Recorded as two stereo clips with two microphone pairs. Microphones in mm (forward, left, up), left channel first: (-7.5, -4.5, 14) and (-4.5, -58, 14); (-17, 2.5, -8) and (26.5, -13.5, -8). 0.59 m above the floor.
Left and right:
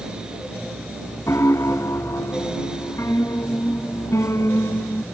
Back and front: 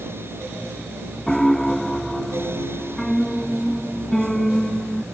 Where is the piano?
80° left.